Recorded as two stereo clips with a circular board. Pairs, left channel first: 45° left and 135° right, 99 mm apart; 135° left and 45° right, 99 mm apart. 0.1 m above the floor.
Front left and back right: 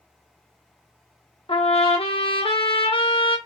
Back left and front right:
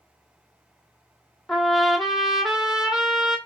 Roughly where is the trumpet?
Ahead left.